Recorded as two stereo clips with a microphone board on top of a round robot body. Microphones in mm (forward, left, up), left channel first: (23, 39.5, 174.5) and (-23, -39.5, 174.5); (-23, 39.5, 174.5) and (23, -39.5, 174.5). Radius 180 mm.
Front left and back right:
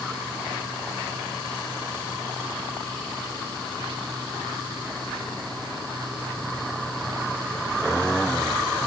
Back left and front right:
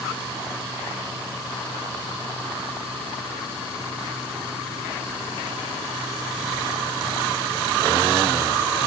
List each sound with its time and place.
Only background noise.